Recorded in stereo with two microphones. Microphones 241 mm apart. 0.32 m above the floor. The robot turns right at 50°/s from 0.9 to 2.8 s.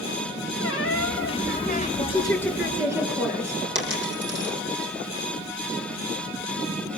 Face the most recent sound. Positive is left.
turn(degrees=-50)  # may be behind; listen again after turning